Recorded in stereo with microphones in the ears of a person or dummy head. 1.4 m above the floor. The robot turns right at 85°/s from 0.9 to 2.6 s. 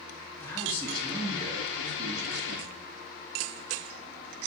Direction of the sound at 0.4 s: 170° left.